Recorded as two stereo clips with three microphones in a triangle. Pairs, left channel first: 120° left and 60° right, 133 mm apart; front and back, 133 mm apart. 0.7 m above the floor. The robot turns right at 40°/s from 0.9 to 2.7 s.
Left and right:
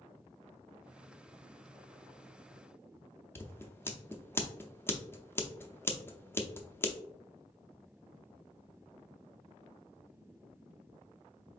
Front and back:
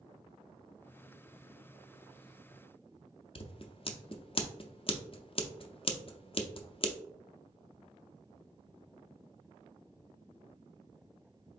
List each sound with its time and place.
3.4 s scissors: 50° left, 0.5 m